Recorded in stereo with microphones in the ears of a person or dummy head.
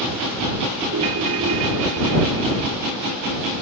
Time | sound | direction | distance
0.9 | a ringtone | 80° right | ?